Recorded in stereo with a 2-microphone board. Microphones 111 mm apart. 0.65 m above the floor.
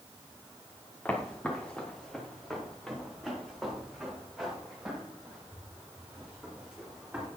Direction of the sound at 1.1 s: 15° left (ahead or behind).